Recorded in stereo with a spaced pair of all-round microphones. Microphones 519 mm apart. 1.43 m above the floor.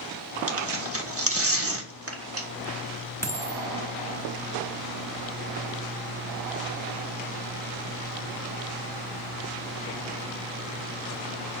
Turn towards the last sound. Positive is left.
turn(degrees=5)  # may be behind; listen again after turning